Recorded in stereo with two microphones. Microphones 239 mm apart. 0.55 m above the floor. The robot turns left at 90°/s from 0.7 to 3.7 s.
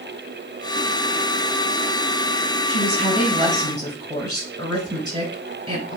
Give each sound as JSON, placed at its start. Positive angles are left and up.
{"t": 2.7, "sound": "a woman speaking", "azimuth_deg": 65, "distance_m": 5.0}